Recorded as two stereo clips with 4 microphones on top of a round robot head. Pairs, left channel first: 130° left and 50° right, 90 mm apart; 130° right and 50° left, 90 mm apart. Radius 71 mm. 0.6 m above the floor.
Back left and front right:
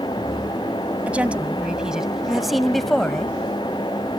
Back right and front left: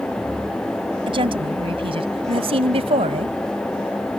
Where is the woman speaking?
25° left; by 3.4 s 45° left.